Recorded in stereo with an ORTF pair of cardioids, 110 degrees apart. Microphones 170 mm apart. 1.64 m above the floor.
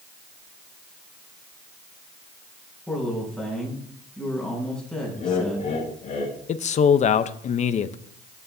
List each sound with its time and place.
2.9 s a man speaking: 5° left, 8 m
5.2 s laughter: 45° left, 7 m
6.5 s a man speaking: 45° left, 0.8 m